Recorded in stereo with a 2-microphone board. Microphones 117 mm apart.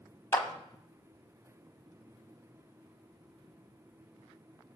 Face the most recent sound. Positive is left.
turn(degrees=20)  # may be behind; listen again after turning